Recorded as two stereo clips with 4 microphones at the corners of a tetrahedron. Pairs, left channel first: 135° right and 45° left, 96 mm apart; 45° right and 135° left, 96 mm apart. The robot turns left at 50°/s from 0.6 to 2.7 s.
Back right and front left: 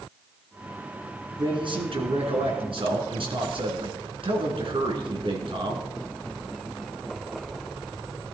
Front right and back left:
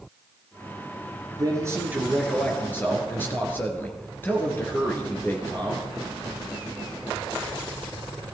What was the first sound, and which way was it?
A man speaking, 90° left.